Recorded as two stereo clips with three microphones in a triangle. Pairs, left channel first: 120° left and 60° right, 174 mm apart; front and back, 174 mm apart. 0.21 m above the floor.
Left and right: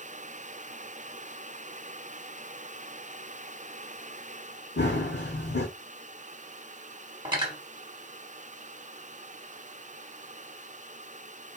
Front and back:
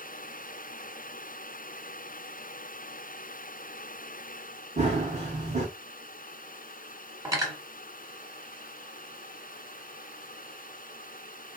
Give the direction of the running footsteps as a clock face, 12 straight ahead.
8 o'clock.